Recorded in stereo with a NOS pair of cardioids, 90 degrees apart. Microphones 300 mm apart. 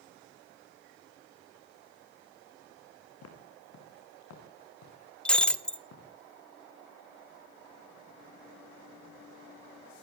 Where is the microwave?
I don't hear a microwave.